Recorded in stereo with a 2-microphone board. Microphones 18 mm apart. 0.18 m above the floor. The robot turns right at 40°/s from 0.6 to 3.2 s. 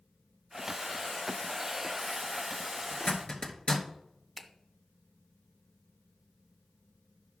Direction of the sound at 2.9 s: 65° left (ahead or behind).